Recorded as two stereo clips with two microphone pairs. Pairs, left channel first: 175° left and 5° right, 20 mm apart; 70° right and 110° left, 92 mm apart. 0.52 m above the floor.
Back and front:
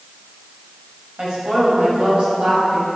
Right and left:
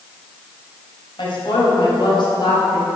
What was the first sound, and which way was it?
A woman speaking, 45° right.